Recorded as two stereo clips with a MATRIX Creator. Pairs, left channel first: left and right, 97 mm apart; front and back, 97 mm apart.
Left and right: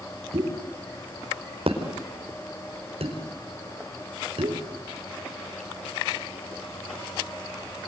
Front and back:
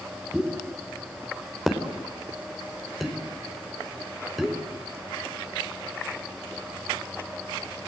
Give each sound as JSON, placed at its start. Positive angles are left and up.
{"t": 0.3, "sound": "a pop", "azimuth_deg": -90, "distance_m": 5.0}